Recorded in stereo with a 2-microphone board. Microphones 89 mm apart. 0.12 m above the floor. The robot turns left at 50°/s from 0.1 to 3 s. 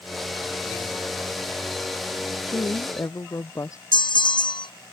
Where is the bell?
60° left (ahead or behind).